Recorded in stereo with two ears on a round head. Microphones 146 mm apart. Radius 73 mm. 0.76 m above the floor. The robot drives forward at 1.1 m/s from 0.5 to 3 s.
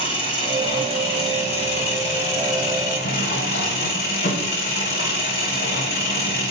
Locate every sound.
0.0 s an engine running: 35° left (ahead or behind), 5 m; by 6.5 s 60° left (ahead or behind), 3.5 m